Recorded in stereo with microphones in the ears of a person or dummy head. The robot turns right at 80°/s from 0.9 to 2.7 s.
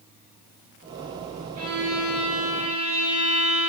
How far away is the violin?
About 6 m.